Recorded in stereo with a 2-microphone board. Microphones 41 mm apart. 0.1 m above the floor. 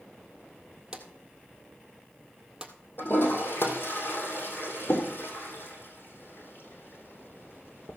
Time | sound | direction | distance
0.9 | a drawer | 20° right (ahead or behind) | 1.6 m
3.0 | a toilet flushing | 60° left (ahead or behind) | 2.5 m